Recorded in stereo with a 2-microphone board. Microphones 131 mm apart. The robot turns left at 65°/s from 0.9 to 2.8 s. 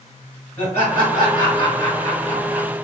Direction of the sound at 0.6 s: 20° left (ahead or behind).